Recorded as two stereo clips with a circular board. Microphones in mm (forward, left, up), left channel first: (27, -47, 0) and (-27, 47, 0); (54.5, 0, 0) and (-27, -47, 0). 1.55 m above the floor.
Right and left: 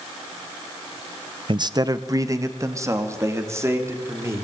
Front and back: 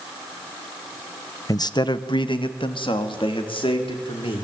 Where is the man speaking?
80° left, 0.7 m; by 4.4 s 55° left, 5 m.